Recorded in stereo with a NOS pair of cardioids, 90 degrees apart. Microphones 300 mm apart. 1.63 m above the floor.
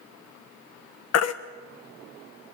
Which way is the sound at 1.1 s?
60° left.